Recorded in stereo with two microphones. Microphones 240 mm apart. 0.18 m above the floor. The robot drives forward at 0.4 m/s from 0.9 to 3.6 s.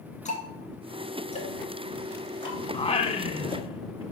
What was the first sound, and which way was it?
Ticking, 30° left (ahead or behind).